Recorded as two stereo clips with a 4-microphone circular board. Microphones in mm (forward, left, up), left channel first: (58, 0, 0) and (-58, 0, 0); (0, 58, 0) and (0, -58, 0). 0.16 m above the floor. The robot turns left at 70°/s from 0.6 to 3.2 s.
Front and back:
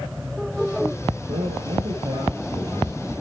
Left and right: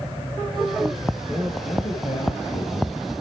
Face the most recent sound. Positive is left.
turn(degrees=45)